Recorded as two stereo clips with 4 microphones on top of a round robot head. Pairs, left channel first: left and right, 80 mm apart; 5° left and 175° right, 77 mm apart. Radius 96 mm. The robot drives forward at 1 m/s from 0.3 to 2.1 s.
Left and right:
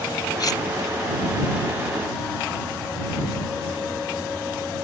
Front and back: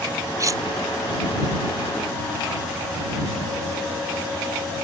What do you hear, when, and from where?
0.4 s cutlery clinking: 135° left; by 0.6 s 140° left